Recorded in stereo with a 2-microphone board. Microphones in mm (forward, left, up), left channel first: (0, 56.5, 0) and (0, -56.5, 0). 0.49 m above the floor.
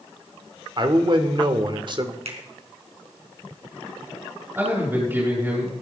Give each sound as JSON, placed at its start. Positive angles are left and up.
{"t": 0.8, "sound": "a man speaking", "side_deg": -45, "distance_m": 1.5}
{"t": 2.2, "sound": "a finger snap", "side_deg": -60, "distance_m": 3.5}
{"t": 4.5, "sound": "a man speaking", "side_deg": -20, "distance_m": 8.0}